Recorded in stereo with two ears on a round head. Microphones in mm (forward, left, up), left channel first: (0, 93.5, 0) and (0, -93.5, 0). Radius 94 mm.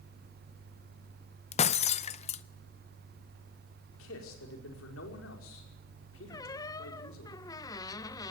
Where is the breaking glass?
30° left (ahead or behind), 0.6 m.